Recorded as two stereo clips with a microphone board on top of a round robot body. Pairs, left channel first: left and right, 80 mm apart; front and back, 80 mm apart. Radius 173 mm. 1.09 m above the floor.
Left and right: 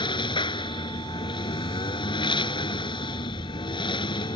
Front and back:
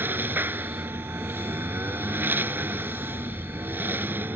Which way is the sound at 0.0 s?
115° left.